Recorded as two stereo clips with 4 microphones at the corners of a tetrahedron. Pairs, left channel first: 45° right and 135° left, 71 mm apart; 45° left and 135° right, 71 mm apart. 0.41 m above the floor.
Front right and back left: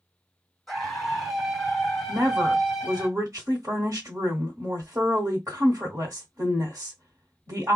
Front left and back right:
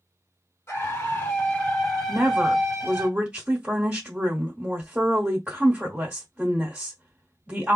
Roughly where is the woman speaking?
Behind.